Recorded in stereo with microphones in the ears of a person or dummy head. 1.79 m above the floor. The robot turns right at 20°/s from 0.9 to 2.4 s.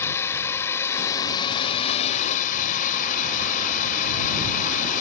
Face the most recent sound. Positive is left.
turn(degrees=45)